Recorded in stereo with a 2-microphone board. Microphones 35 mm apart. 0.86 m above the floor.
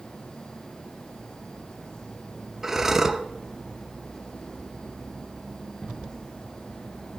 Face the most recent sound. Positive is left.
turn(degrees=-10)  # may be behind; listen again after turning